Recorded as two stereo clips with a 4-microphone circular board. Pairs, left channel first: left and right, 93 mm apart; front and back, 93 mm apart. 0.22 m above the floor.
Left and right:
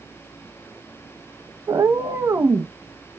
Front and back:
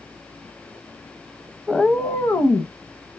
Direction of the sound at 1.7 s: 90° right.